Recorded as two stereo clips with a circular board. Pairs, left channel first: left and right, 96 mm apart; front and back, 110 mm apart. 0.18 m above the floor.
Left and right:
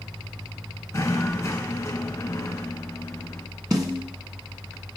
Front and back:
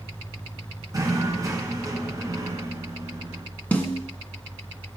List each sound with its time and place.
0.9 s knocking: 135° left, 1.5 m
3.7 s a snare drum: 70° right, 1.4 m